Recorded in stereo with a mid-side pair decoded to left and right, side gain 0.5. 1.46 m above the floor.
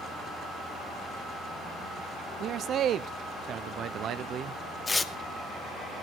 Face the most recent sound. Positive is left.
turn(degrees=25)